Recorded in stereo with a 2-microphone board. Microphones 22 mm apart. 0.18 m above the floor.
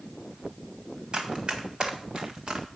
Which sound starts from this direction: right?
Running footsteps, at 1.1 s.